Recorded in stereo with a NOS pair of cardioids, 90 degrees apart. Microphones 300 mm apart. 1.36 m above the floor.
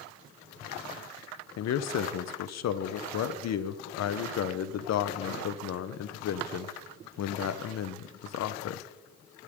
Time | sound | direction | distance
1.6 | a man speaking | 60° left | 0.8 m